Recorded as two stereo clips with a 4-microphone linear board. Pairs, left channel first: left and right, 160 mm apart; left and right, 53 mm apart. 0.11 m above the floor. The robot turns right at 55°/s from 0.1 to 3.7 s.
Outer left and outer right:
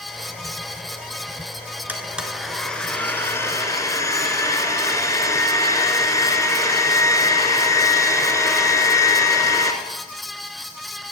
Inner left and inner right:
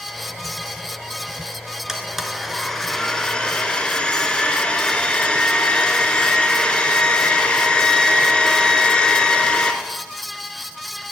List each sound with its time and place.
1.9 s a blender: 10° right (ahead or behind), 1.7 m; by 9.7 s 20° left (ahead or behind), 1.7 m